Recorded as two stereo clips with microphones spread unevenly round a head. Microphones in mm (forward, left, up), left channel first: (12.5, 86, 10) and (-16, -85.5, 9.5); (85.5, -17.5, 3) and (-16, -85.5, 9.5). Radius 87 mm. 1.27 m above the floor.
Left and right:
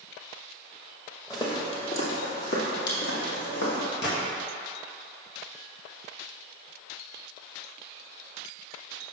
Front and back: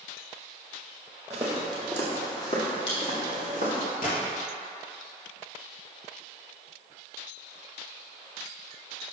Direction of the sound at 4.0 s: 50° left.